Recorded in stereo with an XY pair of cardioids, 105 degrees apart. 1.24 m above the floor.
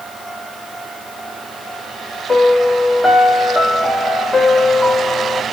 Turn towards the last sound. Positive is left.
turn(degrees=15)